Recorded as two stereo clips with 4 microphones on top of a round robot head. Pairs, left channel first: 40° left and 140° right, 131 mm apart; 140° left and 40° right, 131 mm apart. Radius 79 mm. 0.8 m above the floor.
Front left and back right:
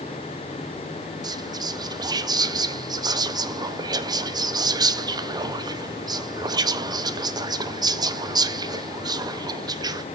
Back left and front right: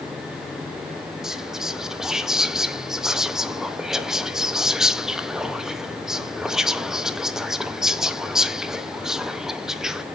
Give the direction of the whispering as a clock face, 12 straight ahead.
4 o'clock.